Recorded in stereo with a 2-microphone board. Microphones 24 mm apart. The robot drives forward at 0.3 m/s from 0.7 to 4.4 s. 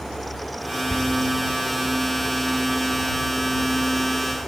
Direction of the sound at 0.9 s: 60° left (ahead or behind).